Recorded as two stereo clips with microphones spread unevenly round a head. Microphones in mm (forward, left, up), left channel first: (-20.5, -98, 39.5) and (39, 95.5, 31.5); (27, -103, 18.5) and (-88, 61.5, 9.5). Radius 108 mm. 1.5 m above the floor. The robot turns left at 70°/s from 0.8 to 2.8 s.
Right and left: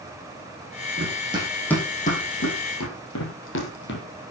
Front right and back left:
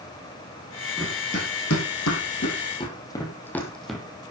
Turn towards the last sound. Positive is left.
turn(degrees=-145)